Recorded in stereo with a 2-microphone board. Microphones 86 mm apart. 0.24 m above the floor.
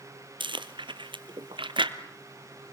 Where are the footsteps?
I don't hear footsteps.